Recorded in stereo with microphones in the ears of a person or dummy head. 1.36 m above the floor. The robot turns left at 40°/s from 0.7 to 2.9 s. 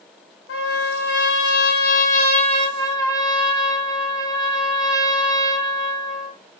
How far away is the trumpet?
About 0.9 m.